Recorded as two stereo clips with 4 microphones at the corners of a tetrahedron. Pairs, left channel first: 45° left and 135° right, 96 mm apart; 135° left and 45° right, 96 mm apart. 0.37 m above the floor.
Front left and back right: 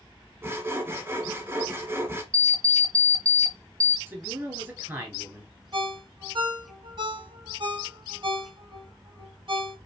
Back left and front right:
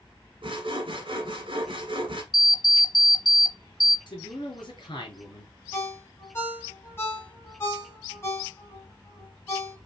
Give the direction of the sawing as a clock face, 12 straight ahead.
2 o'clock.